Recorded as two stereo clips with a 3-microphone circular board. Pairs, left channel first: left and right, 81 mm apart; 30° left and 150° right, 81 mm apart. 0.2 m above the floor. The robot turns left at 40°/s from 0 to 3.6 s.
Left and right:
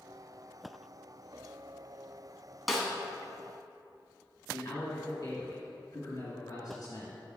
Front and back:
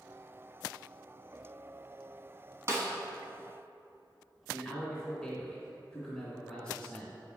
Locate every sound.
2.7 s a snare drum: straight behind, 1.2 m; by 2.9 s 170° left, 1.2 m
4.5 s a man speaking: 110° left, 1.5 m